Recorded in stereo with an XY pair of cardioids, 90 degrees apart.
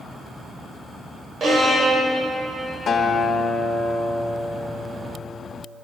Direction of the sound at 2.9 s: 55° left.